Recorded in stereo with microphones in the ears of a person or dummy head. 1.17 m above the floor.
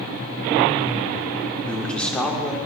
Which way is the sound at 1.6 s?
5° left (ahead or behind).